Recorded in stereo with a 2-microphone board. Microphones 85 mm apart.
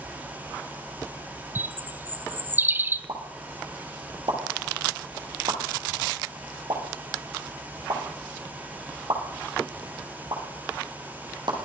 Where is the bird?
25° right (ahead or behind), 0.6 m.